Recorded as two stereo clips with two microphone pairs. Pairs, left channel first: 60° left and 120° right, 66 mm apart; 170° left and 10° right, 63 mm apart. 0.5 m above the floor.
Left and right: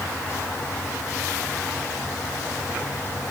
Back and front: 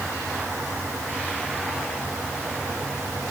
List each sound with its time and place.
Only background noise.